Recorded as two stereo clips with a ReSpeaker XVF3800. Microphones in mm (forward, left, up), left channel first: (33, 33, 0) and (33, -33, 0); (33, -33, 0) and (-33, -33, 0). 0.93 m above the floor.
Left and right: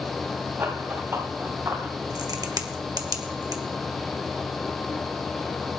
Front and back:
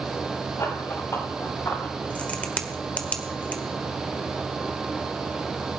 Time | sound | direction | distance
0.6 | running footsteps | 35° right | 4 m
2.1 | a crack | 70° right | 1.4 m